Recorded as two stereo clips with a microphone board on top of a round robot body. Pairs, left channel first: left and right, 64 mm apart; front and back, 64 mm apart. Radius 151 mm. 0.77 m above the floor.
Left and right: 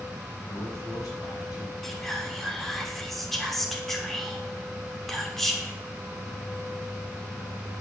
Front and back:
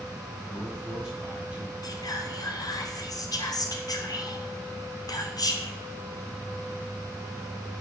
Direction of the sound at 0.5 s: 100° left.